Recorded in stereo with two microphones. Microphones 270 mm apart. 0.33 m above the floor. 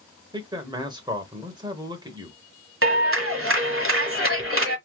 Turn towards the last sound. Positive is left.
turn(degrees=-50)  # may be behind; listen again after turning